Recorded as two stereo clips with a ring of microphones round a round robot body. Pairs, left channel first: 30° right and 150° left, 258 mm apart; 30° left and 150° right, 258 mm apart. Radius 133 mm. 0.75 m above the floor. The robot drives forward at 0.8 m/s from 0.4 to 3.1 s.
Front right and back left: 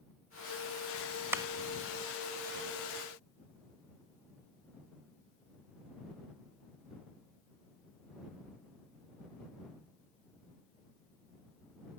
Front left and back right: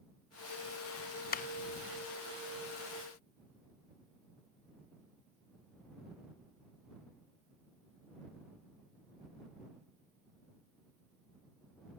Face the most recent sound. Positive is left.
turn(degrees=160)